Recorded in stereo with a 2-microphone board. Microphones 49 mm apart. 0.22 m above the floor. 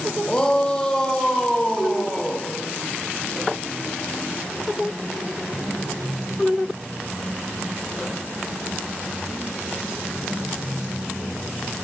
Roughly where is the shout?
Centre.